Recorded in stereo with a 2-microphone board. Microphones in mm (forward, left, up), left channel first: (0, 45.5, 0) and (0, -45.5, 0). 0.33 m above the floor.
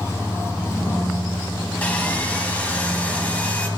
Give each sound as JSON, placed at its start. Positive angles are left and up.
{"t": 1.8, "sound": "sawing", "side_deg": 15, "distance_m": 1.3}